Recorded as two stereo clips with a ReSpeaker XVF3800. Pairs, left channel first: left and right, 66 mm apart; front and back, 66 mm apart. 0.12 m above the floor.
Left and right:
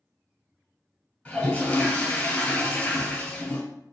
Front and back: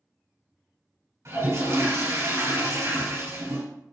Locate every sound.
1.2 s a toilet flushing: 160° left, 1.7 m